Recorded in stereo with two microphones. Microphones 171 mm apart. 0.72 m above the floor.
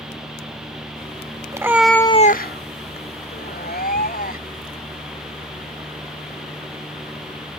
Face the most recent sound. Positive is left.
turn(degrees=65)  # may be behind; listen again after turning